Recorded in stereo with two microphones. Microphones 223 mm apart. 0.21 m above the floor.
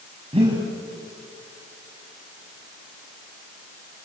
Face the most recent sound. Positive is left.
turn(degrees=-25)  # may be behind; listen again after turning